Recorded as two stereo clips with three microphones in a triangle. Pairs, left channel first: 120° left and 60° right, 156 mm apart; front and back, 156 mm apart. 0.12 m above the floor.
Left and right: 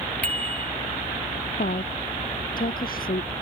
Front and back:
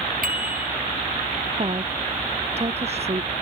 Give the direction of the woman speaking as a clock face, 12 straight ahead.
8 o'clock.